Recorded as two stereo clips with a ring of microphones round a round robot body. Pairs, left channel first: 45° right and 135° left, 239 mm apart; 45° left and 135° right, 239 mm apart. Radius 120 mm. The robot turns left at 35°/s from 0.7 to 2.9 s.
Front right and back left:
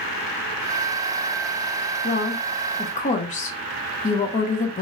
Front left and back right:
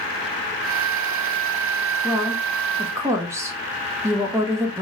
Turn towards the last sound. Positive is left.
turn(degrees=-70)